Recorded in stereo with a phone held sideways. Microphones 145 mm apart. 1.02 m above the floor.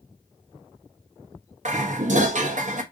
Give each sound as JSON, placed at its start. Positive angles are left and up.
{"t": 1.6, "sound": "dishes clattering", "side_deg": -55, "distance_m": 0.7}